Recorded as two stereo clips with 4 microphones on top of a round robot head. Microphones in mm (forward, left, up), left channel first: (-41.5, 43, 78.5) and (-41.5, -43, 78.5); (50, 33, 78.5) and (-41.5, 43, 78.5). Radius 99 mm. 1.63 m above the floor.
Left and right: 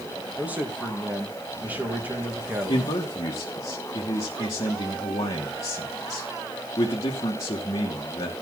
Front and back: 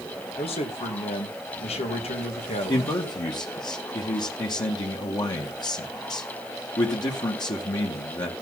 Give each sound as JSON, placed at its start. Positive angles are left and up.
{"t": 0.4, "sound": "a man speaking", "azimuth_deg": -15, "distance_m": 2.0}
{"t": 2.7, "sound": "a man speaking", "azimuth_deg": 35, "distance_m": 2.0}